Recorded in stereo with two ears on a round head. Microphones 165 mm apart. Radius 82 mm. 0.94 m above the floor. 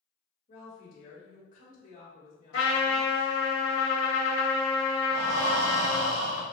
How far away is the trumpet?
About 1.7 m.